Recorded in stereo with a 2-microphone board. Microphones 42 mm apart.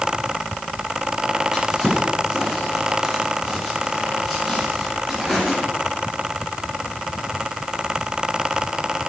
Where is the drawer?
10° right (ahead or behind), 4 m.